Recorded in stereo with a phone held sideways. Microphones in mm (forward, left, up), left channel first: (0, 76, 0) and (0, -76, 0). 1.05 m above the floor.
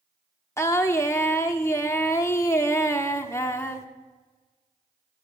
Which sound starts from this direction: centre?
Singing, at 0.6 s.